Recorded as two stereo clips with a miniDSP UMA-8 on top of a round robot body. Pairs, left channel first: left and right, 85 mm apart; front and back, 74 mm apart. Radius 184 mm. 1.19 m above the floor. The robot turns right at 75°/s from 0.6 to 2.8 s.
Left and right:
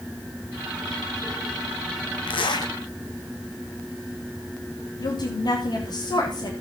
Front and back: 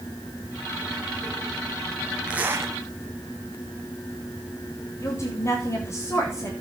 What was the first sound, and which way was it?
A zipper, 100° left.